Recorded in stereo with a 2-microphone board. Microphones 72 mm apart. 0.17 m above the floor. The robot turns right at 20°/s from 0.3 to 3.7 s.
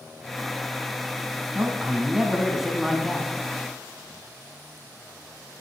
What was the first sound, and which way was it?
A man speaking, 30° right.